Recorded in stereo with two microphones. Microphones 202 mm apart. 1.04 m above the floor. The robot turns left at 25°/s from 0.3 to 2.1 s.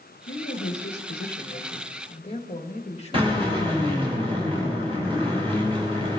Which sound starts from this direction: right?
A drill, at 3.1 s.